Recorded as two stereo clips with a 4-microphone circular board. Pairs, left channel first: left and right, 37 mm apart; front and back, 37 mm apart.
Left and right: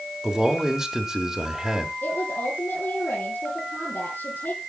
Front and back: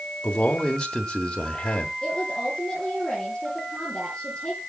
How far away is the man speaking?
About 1.2 m.